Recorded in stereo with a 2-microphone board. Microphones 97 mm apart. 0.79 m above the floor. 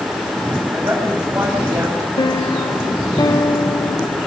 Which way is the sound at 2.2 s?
45° left (ahead or behind).